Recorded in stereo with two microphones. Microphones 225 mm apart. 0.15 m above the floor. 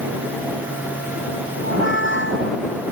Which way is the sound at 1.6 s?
60° left (ahead or behind).